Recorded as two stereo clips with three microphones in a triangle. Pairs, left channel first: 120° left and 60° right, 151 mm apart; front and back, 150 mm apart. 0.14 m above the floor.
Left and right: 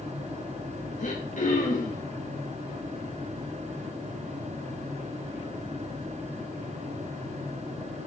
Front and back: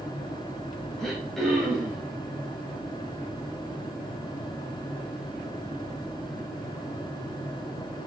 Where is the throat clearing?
90° left, 4.5 m.